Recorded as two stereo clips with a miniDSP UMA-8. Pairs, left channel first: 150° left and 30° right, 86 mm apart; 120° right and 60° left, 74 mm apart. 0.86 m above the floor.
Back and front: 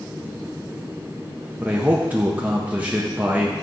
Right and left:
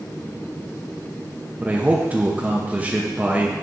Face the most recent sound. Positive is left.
turn(degrees=20)